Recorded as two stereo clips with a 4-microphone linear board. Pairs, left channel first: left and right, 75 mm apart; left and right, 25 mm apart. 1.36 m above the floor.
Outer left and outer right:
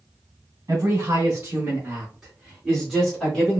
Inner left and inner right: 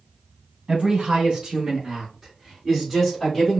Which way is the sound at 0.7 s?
50° right (ahead or behind).